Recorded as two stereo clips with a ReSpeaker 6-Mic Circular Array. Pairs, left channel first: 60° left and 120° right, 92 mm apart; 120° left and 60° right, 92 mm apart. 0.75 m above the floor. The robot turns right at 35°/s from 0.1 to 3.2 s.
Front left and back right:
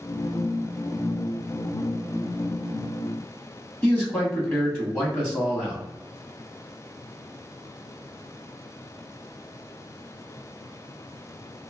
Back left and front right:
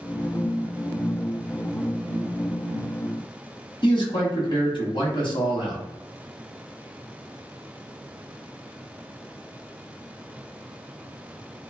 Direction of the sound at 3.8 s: 125° left.